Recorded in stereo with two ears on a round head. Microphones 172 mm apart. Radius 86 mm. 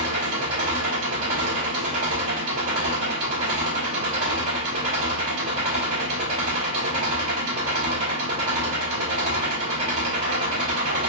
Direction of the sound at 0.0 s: 80° right.